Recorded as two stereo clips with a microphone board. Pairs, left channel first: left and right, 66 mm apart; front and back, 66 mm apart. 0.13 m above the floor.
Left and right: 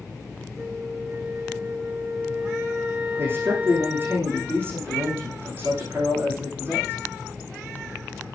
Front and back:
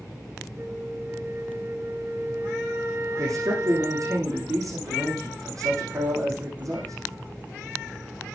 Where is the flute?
155° right, 1.1 m.